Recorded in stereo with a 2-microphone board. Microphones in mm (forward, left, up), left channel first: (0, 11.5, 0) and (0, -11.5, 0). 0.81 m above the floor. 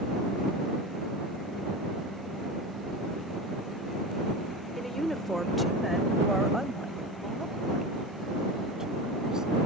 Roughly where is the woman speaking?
Centre.